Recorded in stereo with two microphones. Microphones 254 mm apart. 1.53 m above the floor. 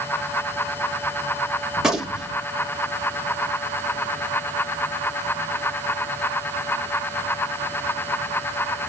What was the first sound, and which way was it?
A gunshot, 5° right (ahead or behind).